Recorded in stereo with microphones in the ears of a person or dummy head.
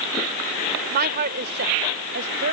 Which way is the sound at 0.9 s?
55° right (ahead or behind).